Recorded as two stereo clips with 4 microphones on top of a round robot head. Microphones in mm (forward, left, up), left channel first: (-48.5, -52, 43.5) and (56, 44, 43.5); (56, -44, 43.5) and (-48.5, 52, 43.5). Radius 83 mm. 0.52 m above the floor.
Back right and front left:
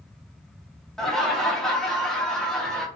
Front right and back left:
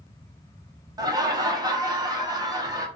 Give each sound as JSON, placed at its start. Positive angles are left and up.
{"t": 1.0, "sound": "laughter", "azimuth_deg": 135, "distance_m": 0.7}